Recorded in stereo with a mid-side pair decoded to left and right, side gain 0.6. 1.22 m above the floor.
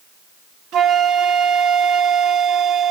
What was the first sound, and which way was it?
A flute, 60° right.